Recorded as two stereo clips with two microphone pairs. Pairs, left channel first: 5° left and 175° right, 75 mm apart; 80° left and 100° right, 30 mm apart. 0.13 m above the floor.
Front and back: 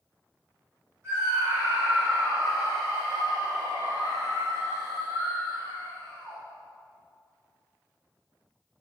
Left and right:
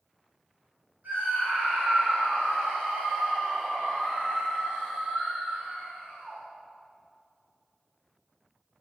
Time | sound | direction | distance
1.0 | a scream | 120° right | 6 m